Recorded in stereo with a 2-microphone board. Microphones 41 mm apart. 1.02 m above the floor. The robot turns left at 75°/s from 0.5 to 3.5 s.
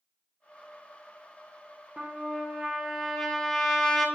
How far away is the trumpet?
About 0.7 m.